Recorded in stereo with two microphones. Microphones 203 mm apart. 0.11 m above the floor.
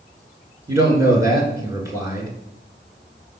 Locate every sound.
0.7 s a man speaking: 15° right (ahead or behind), 1.2 m